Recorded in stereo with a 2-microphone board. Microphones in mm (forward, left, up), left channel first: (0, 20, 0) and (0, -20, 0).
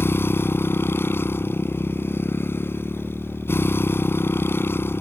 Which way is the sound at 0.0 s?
70° left (ahead or behind).